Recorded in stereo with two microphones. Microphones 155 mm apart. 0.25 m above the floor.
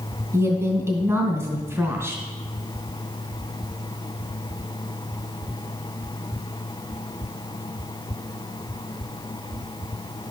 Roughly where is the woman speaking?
Centre.